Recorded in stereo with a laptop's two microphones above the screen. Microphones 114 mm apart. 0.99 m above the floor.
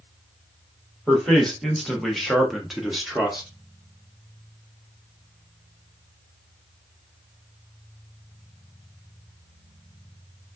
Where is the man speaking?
5° left (ahead or behind), 1.2 m; by 3.5 s 5° right (ahead or behind), 0.9 m.